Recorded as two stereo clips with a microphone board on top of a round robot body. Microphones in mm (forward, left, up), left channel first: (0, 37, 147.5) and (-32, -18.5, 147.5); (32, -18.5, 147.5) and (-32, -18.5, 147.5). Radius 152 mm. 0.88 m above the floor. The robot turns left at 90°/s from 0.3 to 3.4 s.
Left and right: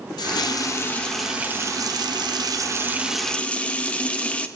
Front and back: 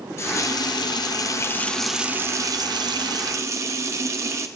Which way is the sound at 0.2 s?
50° left.